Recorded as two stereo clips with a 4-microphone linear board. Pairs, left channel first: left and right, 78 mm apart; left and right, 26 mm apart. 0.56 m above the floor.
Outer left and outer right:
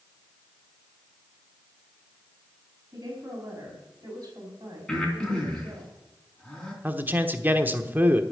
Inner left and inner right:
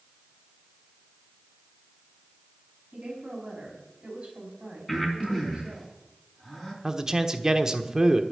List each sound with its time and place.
2.9 s a woman speaking: 40° right (ahead or behind), 5 m; by 5.9 s 55° right (ahead or behind), 3 m
4.9 s breathing: 5° left (ahead or behind), 3.5 m
6.8 s a man speaking: 25° right (ahead or behind), 1.1 m